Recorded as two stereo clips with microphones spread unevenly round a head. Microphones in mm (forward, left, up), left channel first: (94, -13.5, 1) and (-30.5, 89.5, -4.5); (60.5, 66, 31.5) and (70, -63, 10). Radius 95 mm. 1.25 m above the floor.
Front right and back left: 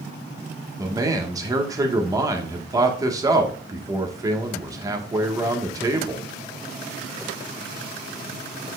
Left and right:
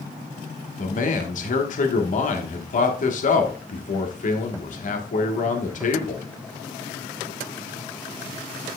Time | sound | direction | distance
0.8 | a man speaking | 70° left | 1.5 m